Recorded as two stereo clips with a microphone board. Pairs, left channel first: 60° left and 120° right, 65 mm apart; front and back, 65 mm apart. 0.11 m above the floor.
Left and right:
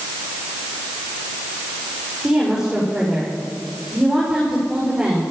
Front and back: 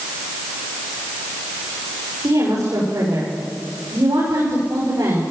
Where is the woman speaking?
165° left, 7 m.